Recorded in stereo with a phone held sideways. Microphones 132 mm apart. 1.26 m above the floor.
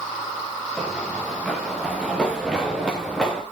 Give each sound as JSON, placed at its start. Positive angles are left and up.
{"t": 0.8, "sound": "running footsteps", "side_deg": 5, "distance_m": 6.0}